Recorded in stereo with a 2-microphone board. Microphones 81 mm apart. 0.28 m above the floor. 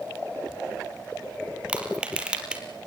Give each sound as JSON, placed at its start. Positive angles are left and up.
{"t": 1.7, "sound": "crushing", "side_deg": -10, "distance_m": 3.5}